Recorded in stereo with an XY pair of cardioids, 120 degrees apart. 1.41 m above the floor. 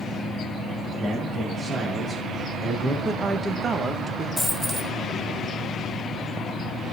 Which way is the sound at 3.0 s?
30° right.